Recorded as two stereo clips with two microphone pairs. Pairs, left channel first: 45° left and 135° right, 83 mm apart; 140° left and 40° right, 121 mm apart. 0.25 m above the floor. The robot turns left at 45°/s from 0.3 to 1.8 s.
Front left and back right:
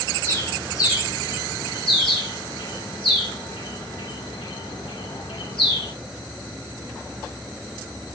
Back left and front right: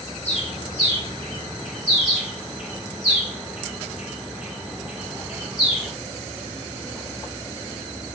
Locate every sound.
0.2 s a bird: 110° left, 6.5 m; by 5.9 s 45° left, 6.5 m